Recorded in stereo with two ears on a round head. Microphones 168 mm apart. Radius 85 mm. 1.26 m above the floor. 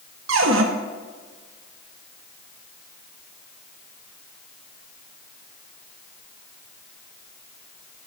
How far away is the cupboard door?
About 1.2 m.